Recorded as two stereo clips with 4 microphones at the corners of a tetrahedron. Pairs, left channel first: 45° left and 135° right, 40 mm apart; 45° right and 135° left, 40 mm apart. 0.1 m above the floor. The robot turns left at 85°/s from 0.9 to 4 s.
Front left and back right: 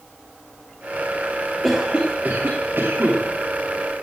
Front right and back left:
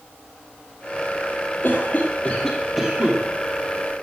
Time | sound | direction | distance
1.6 | a cough | 45° right | 2.5 m